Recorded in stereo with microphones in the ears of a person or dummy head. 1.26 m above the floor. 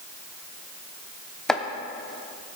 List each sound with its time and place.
1.5 s chopping: 5° left (ahead or behind), 0.7 m